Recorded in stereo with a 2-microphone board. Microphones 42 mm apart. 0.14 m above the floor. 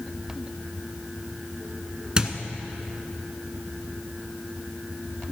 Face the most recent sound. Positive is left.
turn(degrees=-25)  # may be behind; listen again after turning